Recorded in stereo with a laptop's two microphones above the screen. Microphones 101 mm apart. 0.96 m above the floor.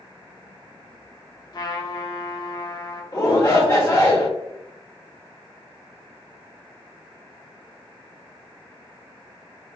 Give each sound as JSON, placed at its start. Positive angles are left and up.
{"t": 1.5, "sound": "a trumpet", "side_deg": 40, "distance_m": 0.8}
{"t": 3.1, "sound": "a shout", "side_deg": 30, "distance_m": 0.8}